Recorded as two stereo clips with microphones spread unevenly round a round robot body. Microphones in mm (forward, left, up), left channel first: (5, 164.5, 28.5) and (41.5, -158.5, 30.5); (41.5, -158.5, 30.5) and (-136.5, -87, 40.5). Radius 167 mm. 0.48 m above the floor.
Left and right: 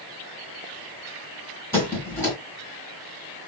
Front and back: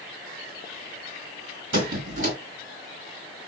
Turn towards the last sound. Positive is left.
turn(degrees=180)